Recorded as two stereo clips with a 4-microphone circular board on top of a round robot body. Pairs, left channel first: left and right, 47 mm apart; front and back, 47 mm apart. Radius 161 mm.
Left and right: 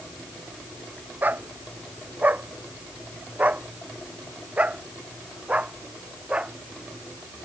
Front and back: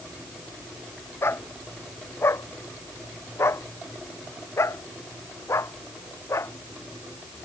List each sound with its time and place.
1.2 s a dog barking: 35° right; by 7.3 s 20° right